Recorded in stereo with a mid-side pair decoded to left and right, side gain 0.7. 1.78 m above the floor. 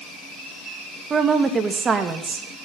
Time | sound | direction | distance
1.1 | a woman speaking | 30° right | 2.5 m